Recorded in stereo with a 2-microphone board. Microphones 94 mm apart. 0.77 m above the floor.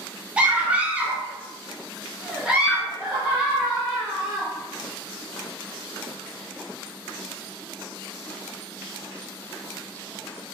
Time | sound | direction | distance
0.4 | a scream | 15° right (ahead or behind) | 0.9 m